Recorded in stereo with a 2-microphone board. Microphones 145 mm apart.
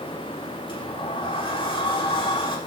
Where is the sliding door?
30° left (ahead or behind), 2.0 m.